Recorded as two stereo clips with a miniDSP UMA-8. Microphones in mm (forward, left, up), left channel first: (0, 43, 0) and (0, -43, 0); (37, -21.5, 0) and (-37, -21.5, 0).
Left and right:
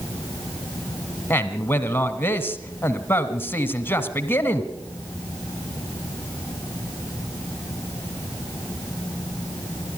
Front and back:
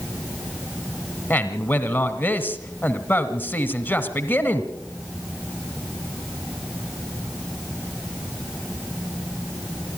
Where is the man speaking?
45° left, 1.4 m.